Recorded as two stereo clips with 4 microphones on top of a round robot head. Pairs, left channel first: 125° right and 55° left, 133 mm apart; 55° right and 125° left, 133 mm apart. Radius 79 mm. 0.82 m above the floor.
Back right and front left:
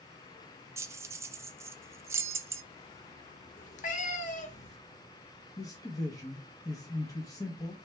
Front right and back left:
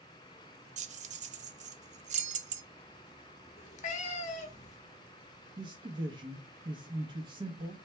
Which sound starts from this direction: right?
A cat meowing, at 3.6 s.